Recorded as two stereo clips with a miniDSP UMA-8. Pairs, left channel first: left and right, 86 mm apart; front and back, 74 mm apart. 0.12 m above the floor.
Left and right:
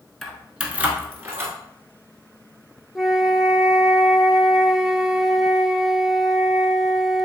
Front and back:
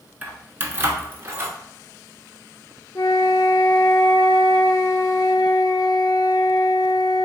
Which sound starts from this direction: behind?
Keys jangling, at 0.2 s.